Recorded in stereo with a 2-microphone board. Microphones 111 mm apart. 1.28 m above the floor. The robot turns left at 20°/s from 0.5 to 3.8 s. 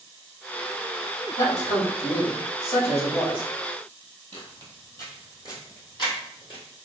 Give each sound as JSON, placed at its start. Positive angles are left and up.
{"t": 1.4, "sound": "a man speaking", "azimuth_deg": 95, "distance_m": 2.0}
{"t": 4.3, "sound": "footsteps", "side_deg": 15, "distance_m": 1.7}